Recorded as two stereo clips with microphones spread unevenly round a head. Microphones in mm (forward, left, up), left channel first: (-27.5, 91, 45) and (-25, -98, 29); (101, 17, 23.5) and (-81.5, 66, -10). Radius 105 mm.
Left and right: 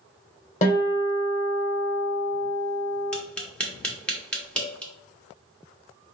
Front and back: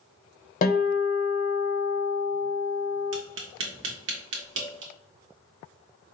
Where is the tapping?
175° left, 1.0 m.